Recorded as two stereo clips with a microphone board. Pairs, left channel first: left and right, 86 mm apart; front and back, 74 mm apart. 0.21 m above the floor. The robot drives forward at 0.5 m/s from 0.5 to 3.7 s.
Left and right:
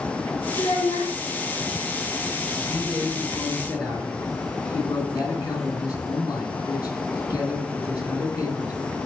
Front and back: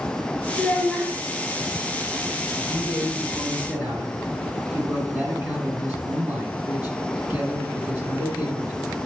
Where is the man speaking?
105° left, 1.8 m; by 8.8 s 125° left, 2 m.